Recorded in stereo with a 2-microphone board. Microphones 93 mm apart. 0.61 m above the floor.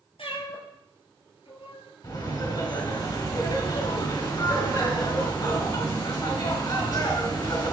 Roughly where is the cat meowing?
Left.